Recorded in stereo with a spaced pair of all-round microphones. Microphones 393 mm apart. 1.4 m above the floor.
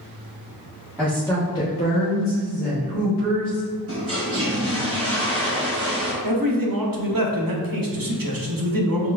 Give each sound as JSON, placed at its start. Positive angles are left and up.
{"t": 1.0, "sound": "a woman speaking", "side_deg": -5, "distance_m": 1.0}
{"t": 3.9, "sound": "a toilet flushing", "side_deg": -35, "distance_m": 1.0}
{"t": 6.2, "sound": "a man speaking", "side_deg": -60, "distance_m": 0.7}